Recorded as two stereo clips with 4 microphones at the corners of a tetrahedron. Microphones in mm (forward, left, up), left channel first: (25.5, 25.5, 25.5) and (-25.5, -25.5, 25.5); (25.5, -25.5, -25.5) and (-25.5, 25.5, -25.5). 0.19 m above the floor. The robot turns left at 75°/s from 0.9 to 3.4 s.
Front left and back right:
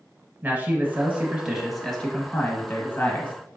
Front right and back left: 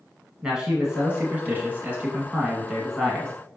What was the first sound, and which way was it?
A man speaking, 160° right.